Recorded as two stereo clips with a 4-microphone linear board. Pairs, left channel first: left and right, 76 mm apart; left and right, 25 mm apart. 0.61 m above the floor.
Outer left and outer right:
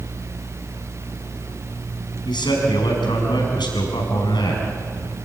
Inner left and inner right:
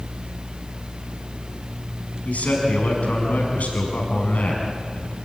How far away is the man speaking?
About 6 m.